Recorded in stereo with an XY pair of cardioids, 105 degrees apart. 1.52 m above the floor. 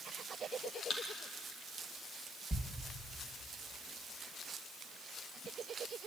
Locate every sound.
0.9 s a thud: 45° left, 5.5 m
2.5 s a thud: 10° right, 3.5 m